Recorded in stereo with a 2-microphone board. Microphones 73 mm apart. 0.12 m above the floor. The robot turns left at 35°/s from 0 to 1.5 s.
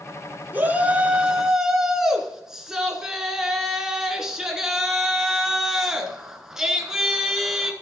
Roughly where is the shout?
Behind right.